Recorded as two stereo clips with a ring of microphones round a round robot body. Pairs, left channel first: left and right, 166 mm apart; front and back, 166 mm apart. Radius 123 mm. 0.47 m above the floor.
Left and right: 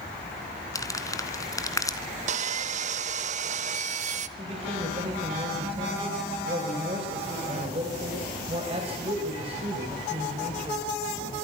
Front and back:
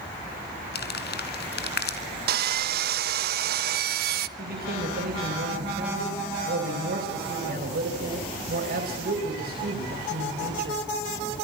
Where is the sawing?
145° right, 0.6 m.